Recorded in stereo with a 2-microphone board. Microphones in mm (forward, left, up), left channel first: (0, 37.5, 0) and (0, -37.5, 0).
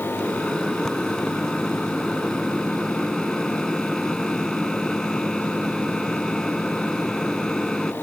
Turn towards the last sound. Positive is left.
turn(degrees=5)  # may be behind; listen again after turning